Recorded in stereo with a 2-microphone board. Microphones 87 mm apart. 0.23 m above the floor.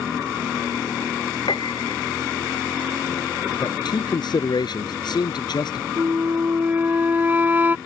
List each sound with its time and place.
1.5 s a piano: 75° left (ahead or behind)
3.6 s a man speaking: 60° left (ahead or behind)
6.0 s a flute: 25° right (ahead or behind)